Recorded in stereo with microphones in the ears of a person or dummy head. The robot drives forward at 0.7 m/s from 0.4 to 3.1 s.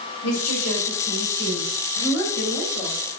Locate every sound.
0.2 s a woman speaking: 85° left, 5 m; by 3.0 s 65° left (ahead or behind), 5.5 m